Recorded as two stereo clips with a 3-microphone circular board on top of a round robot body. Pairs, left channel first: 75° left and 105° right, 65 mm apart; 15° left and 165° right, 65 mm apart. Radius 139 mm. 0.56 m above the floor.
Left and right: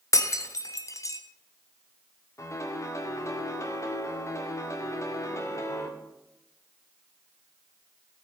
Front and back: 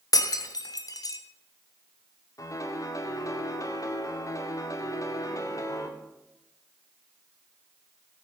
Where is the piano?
40° left, 2 m.